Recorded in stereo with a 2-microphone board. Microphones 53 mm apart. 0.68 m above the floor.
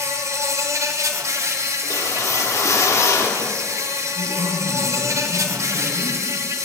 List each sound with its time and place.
0.0 s an insect: 70° right (ahead or behind), 1.0 m
1.8 s a whoosh: 65° left (ahead or behind), 1.0 m
4.2 s a man speaking: centre (ahead or behind), 2.5 m